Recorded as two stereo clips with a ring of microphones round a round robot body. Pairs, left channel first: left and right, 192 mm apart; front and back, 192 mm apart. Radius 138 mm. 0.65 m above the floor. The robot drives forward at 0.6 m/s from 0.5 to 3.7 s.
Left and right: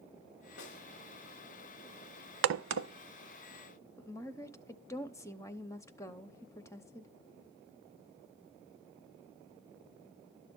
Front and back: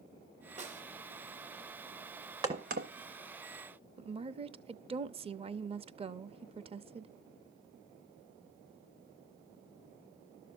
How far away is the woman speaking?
About 0.7 m.